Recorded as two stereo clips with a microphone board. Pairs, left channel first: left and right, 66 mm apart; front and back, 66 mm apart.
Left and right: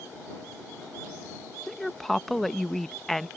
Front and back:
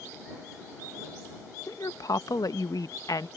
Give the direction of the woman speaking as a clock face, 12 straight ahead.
12 o'clock.